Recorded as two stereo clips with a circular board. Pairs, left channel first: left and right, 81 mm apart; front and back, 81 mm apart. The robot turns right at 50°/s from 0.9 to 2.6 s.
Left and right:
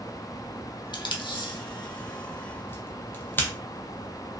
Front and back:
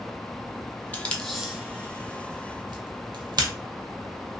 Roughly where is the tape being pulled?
Left.